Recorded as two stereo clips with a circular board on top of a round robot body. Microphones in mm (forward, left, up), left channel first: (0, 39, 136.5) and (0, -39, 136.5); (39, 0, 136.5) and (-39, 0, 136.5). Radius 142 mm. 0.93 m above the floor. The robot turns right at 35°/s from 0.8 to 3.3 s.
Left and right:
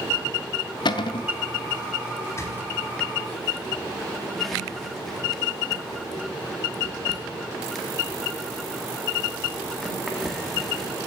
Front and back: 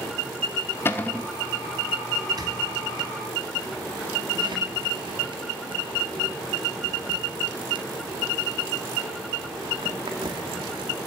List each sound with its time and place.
0.8 s a cupboard door: 65° left, 0.7 m; by 1.3 s 80° left, 0.7 m
2.3 s a squeak: 140° left, 1.8 m; by 10.9 s straight behind, 1.8 m